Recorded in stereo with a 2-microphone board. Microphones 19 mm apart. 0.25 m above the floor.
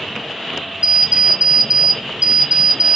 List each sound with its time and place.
0.8 s an alarm clock: 60° right (ahead or behind), 1.2 m